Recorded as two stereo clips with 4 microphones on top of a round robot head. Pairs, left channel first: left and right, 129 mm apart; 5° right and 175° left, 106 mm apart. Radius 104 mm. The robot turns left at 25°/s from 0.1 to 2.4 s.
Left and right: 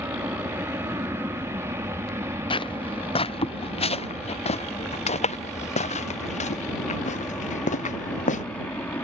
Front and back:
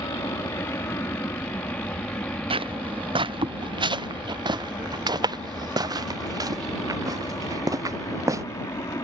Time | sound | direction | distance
0.0 | an aircraft | 30° right | ?
2.5 | footsteps | 140° left | ?